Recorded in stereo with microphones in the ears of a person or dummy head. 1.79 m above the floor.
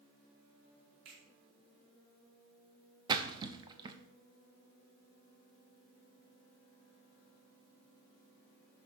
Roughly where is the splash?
Right.